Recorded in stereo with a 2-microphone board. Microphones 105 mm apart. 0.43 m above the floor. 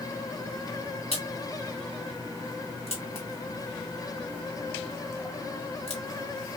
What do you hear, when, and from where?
1.1 s a crack: 75° left (ahead or behind), 2.5 m